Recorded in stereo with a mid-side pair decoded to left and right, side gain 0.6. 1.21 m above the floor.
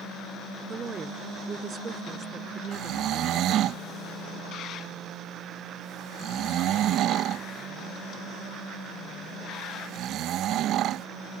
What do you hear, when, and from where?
0.7 s a woman speaking: 30° right; by 3.7 s 45° right
2.7 s snoring: 60° right